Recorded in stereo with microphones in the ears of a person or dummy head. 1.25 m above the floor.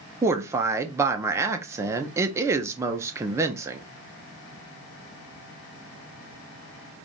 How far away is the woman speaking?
About 0.8 m.